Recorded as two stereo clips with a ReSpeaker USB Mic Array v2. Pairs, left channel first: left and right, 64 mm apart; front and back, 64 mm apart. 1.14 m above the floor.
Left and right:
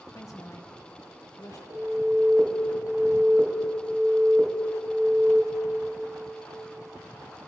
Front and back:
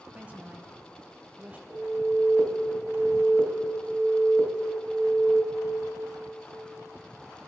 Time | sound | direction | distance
0.1 | a woman speaking | 120° left | 0.9 m
1.7 | an alarm | 115° right | 1.7 m